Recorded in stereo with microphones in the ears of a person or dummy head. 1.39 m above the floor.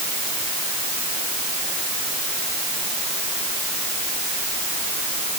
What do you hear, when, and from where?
Only background noise.